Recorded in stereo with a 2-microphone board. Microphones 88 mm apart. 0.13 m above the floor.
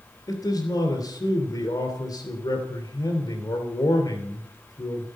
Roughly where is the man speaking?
Left.